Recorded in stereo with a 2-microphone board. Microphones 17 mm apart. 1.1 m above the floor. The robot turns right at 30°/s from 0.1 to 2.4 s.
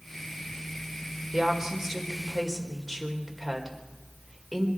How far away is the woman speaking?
About 4 m.